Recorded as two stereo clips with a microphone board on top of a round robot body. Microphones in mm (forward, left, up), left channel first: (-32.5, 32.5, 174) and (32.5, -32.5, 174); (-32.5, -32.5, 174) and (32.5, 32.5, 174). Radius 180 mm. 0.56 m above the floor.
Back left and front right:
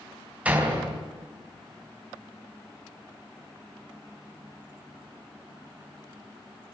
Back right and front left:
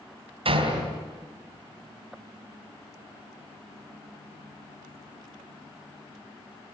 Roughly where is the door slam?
Ahead left.